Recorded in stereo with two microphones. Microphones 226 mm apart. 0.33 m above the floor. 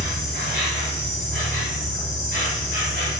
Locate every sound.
0.0 s an insect: 55° right (ahead or behind), 1.3 m